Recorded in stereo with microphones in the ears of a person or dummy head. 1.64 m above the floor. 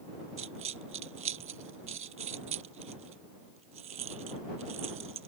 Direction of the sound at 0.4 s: 45° right (ahead or behind).